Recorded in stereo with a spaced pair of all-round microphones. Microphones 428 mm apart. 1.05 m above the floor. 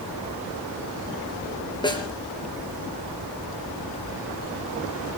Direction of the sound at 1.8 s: 10° left (ahead or behind).